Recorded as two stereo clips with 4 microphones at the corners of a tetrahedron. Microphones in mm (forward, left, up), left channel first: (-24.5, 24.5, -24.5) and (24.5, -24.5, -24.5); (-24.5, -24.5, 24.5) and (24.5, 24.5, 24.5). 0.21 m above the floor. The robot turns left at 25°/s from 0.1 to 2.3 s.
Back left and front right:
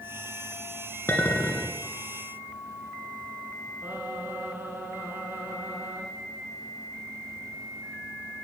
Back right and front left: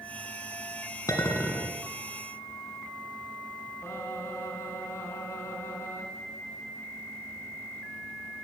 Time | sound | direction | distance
1.1 | a clink | 170° right | 1.8 m
3.8 | singing | 90° right | 2.5 m